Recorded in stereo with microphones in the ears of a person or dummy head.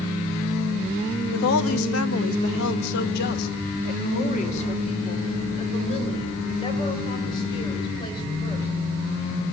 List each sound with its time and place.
1.3 s a woman speaking: 75° left (ahead or behind), 1.3 m; by 8.7 s 25° left (ahead or behind), 4.5 m